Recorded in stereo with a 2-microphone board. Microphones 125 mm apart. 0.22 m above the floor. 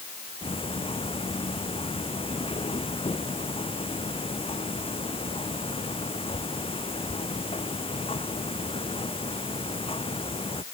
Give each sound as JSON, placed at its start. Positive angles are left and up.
{"t": 0.4, "sound": "ticking", "side_deg": 50}